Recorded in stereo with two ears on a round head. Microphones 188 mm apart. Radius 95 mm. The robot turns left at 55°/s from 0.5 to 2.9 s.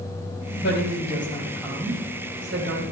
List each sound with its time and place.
0.6 s a woman speaking: 60° left (ahead or behind), 7.5 m; by 2.8 s 65° right (ahead or behind), 7.5 m